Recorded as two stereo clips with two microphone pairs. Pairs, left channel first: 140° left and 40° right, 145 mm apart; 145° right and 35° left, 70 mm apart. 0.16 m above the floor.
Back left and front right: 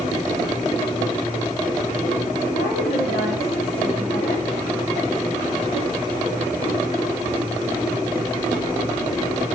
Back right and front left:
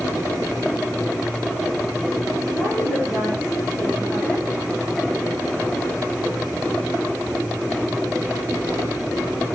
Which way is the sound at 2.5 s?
100° left.